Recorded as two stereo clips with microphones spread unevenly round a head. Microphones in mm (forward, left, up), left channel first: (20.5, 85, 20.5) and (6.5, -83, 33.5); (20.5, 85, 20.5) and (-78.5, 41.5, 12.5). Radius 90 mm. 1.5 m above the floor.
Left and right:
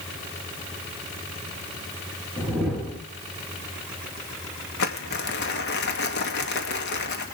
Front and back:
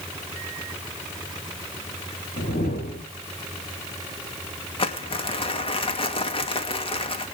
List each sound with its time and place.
2.4 s a whoosh: 5° right, 4.5 m
4.8 s crumpling: 60° left, 2.5 m